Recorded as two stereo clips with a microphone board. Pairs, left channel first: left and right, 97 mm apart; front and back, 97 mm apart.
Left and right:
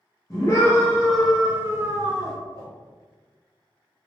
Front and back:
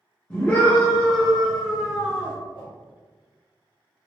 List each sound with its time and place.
0.3 s a scream: 70° left, 0.8 m; by 2.4 s 105° right, 0.9 m
2.5 s a whoosh: 35° right, 1.3 m